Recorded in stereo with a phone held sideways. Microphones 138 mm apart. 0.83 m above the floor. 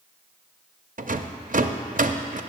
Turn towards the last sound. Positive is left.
turn(degrees=-65)  # may be behind; listen again after turning